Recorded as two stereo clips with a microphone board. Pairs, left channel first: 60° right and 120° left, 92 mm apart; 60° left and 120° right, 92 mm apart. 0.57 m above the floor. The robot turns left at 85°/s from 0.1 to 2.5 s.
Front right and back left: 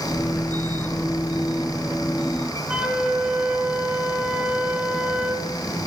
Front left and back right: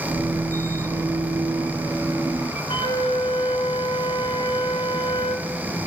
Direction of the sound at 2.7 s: 45° left.